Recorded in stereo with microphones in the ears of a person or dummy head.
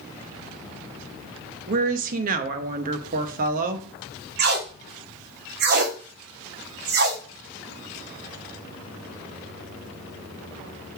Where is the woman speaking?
45° right (ahead or behind), 0.7 m.